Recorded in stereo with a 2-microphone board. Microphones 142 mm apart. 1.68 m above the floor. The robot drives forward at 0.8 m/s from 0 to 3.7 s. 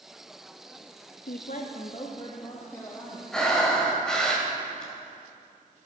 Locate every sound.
1.3 s a woman speaking: 80° left, 0.6 m; by 3.2 s 20° left (ahead or behind), 1.8 m
3.3 s breathing: 5° left (ahead or behind), 1.7 m